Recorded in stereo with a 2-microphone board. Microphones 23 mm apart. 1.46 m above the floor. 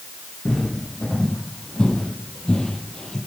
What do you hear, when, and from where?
0.5 s footsteps: 30° left (ahead or behind), 3.5 m; by 3.2 s 35° left (ahead or behind), 1.9 m